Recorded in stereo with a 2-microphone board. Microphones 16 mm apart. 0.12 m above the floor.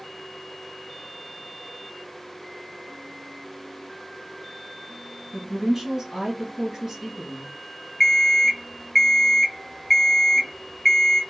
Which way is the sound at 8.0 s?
15° left (ahead or behind).